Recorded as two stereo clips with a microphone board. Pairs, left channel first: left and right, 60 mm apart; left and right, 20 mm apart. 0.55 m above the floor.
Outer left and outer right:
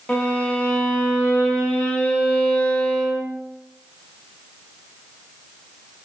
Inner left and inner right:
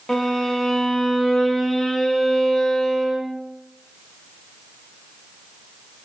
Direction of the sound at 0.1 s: 25° left (ahead or behind).